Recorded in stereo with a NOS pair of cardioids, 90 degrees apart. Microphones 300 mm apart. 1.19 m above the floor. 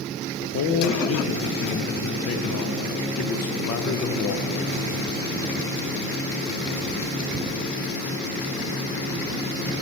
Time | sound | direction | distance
0.4 | a man speaking | 55° left | 0.6 m